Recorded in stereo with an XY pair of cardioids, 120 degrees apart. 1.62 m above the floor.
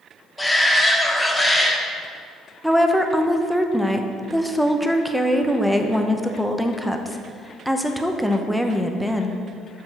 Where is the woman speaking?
Straight ahead, 0.8 m.